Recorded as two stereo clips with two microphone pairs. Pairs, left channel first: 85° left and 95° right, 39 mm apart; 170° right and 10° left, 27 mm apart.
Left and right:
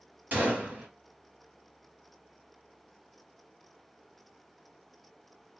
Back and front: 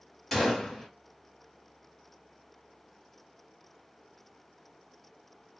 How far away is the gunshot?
About 2 m.